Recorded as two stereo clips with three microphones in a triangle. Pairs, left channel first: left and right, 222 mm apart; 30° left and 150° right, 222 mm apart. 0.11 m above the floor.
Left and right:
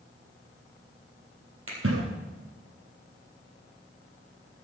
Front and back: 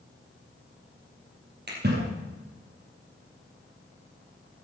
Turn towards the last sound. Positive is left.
turn(degrees=-110)